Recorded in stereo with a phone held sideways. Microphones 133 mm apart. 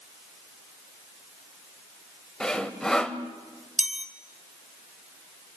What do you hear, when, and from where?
2.4 s sawing: 5° left (ahead or behind), 1.4 m
3.8 s a chime: 65° right (ahead or behind), 1.5 m